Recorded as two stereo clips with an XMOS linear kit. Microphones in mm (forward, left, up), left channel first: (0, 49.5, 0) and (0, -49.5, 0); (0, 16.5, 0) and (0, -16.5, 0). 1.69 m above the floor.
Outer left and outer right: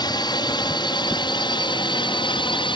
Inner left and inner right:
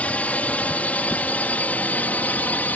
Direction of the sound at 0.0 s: 45° left (ahead or behind).